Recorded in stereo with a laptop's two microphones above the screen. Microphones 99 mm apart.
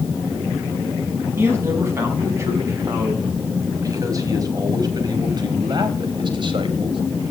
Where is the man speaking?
25° right (ahead or behind), 6.5 m; by 7.0 s 60° right (ahead or behind), 3.5 m.